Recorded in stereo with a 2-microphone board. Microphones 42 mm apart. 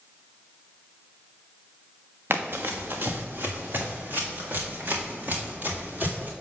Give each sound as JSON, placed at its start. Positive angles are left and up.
{"t": 2.3, "sound": "running footsteps", "side_deg": -55, "distance_m": 0.9}